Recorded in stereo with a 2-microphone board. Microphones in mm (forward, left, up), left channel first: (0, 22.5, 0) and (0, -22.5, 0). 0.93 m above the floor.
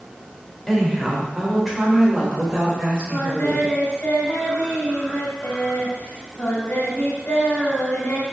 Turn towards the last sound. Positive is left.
turn(degrees=35)  # may be behind; listen again after turning